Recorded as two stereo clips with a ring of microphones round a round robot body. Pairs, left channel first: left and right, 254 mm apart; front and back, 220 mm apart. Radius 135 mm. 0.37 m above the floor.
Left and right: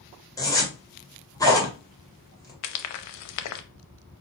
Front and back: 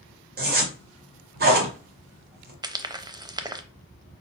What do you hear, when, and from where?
0.4 s a zipper: 160° left, 1.9 m
2.6 s frying: 105° left, 0.7 m